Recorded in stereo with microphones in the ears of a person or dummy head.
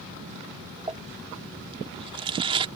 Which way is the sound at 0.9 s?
25° right (ahead or behind).